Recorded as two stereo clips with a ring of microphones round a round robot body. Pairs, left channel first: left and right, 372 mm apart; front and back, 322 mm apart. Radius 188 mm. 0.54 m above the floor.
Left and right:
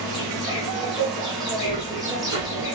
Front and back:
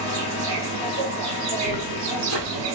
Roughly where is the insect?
Behind.